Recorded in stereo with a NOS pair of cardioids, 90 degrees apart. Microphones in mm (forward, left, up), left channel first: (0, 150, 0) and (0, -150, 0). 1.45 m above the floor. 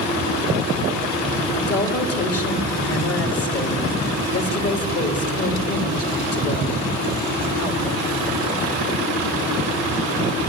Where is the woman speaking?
45° left, 3 m.